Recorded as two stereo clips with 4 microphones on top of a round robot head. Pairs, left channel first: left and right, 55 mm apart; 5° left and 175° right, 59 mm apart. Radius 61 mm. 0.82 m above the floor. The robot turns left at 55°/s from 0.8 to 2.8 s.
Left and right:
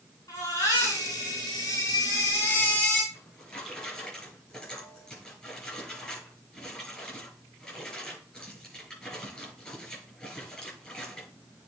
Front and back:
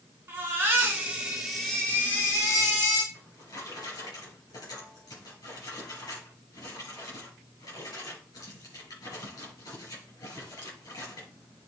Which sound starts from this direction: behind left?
A baby crying, at 0.3 s.